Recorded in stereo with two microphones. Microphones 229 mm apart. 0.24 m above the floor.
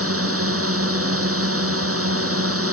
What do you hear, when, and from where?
0.0 s a drone: 70° right (ahead or behind)